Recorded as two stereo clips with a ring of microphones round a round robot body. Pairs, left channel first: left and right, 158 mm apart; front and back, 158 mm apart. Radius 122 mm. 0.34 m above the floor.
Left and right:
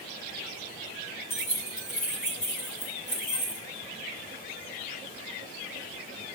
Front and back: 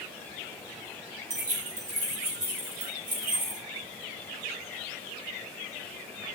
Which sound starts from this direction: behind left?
Keys jangling, at 1.3 s.